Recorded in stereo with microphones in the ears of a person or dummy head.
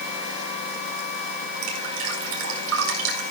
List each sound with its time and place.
1.6 s dripping: 80° right, 4.5 m